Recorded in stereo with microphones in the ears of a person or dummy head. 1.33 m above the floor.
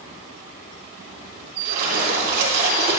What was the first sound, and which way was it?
A splash, 60° right (ahead or behind).